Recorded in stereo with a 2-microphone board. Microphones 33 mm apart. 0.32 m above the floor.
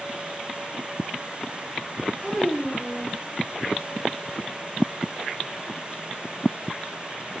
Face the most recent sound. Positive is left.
turn(degrees=5)  # may be behind; listen again after turning